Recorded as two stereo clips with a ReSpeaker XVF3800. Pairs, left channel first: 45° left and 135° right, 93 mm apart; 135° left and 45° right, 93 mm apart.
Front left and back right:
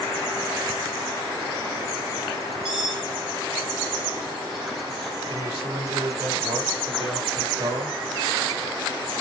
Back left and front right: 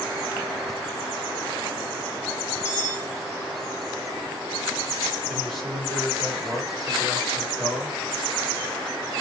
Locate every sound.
2.6 s cutlery clinking: 155° right, 6.5 m
5.3 s a man speaking: 135° right, 5 m